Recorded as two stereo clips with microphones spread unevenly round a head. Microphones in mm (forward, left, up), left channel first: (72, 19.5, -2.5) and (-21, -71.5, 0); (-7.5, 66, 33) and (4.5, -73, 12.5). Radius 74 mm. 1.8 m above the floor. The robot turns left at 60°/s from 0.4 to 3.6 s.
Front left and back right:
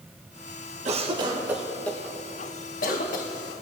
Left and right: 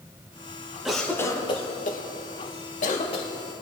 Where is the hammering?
No hammering in this recording.